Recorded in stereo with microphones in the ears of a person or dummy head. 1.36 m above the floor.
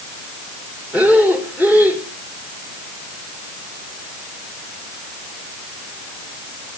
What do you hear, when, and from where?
0.9 s breathing: 5° right (ahead or behind), 1.9 m